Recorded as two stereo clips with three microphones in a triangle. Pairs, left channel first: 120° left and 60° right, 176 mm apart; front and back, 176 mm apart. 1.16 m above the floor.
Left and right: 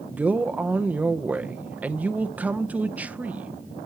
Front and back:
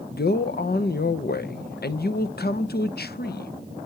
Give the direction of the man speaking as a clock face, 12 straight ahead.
11 o'clock.